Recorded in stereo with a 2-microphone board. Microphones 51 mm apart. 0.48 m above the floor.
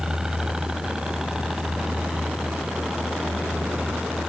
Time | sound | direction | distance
0.0 | a helicopter | 10° right (ahead or behind) | ?